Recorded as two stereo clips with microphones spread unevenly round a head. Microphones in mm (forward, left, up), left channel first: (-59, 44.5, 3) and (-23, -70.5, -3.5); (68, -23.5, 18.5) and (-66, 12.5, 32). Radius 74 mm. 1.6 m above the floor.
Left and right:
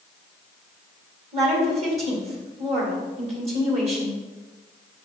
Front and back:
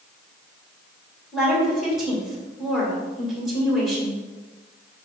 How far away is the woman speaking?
About 2 m.